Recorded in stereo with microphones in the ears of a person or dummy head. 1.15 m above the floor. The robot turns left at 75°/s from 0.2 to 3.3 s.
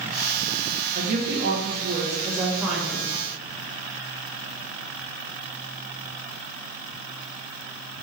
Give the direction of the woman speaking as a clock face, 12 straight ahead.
2 o'clock.